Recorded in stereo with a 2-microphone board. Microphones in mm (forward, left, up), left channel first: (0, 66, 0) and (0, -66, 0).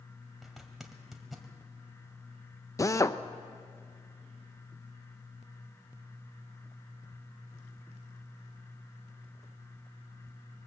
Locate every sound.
0.4 s a zipper: centre (ahead or behind), 2 m
2.8 s a drill: 25° left (ahead or behind), 0.6 m